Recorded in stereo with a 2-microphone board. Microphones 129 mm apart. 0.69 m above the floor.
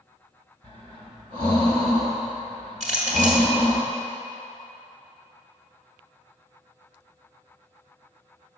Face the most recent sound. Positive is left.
turn(degrees=-60)  # may be behind; listen again after turning